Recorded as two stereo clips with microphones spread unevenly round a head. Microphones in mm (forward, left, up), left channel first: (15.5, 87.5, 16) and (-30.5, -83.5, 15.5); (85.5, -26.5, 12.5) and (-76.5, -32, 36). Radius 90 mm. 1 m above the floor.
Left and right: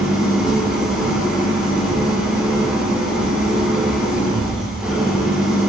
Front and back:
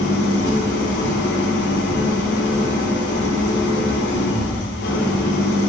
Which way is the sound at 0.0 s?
20° right.